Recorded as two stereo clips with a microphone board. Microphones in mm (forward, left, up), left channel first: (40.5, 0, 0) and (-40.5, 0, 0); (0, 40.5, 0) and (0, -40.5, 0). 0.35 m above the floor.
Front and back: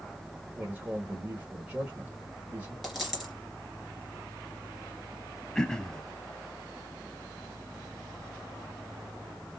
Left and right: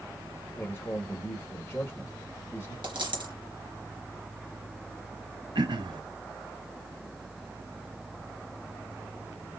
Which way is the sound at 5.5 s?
80° right.